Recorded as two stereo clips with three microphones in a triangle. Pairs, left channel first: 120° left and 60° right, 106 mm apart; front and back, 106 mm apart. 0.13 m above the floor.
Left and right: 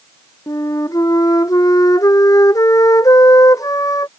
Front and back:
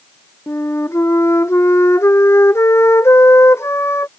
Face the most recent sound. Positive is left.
turn(degrees=65)